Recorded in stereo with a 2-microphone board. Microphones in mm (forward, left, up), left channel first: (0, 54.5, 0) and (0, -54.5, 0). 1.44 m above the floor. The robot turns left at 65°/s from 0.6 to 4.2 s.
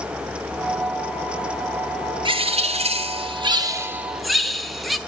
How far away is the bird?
About 0.7 m.